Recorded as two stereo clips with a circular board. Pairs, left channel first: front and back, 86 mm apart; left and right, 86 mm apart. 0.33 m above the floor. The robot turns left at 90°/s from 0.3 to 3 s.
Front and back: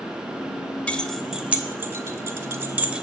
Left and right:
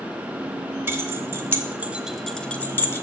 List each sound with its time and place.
0.9 s keys jangling: 60° right, 0.8 m; by 3.0 s 110° left, 0.8 m